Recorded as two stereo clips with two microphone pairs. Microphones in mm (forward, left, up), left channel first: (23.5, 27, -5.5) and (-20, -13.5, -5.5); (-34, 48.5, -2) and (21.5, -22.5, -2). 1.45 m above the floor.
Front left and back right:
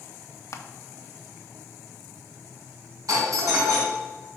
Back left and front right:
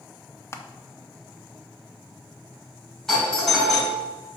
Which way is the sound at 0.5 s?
70° left.